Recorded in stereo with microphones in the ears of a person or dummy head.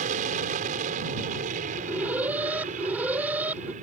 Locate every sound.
0.0 s an aircraft: 45° right (ahead or behind)
1.7 s an alarm: 10° right (ahead or behind)